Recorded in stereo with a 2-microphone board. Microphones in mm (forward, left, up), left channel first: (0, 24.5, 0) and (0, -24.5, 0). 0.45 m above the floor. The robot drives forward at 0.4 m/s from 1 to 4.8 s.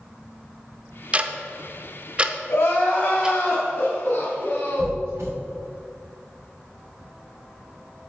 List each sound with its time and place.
1.1 s ticking: 30° right (ahead or behind), 0.6 m; by 3.4 s 15° right (ahead or behind), 0.9 m
2.5 s crying: 65° left (ahead or behind), 2.5 m; by 5.0 s 55° left (ahead or behind), 2.5 m
4.8 s a squeak: 85° right, 3 m